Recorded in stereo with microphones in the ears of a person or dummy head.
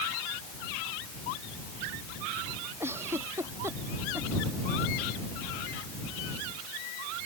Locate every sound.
2.8 s a giggle: 15° right (ahead or behind)